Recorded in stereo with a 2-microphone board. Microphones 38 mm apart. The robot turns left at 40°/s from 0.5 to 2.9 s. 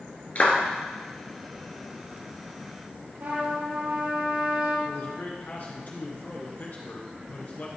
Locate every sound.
0.3 s a clap: 45° left (ahead or behind), 1.9 m
3.2 s a trumpet: 70° right (ahead or behind), 3.5 m
4.8 s a man speaking: 55° left (ahead or behind), 2.5 m